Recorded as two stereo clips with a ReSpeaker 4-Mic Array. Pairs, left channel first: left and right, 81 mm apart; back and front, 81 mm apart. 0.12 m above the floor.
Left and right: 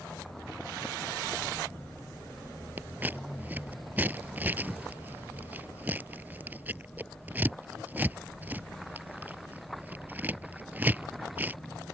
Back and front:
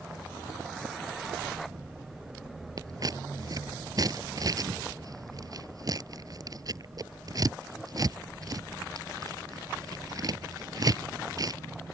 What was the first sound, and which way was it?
Scissors, 25° right.